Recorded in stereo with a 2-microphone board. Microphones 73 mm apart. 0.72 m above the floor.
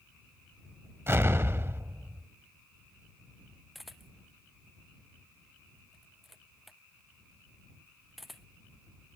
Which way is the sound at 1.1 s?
40° right (ahead or behind).